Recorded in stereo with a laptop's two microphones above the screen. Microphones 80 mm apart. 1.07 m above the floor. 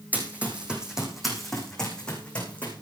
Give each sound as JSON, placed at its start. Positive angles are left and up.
{"t": 0.1, "sound": "running footsteps", "side_deg": -20, "distance_m": 4.0}